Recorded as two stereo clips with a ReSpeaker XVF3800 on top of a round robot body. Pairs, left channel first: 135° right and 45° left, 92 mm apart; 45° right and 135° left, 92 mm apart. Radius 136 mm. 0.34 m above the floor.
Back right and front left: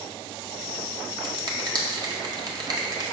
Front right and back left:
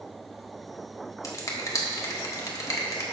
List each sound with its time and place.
1.2 s a finger snap: 5° left, 1.5 m